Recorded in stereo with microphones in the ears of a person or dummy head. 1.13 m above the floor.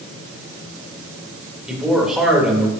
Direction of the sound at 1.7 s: 5° right (ahead or behind).